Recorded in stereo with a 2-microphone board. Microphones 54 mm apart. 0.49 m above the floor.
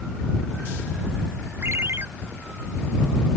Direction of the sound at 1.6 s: 50° right (ahead or behind).